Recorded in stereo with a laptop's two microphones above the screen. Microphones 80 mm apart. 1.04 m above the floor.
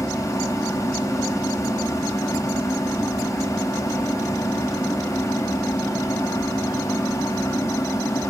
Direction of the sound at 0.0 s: 45° left (ahead or behind).